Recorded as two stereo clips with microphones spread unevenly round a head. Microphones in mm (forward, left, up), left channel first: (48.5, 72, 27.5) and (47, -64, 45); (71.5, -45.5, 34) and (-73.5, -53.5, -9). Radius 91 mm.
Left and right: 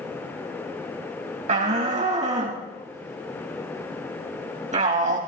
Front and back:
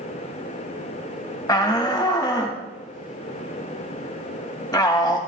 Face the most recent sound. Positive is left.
turn(degrees=-60)